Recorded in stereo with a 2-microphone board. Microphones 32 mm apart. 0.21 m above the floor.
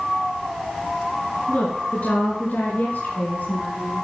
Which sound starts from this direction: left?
A woman speaking, at 1.5 s.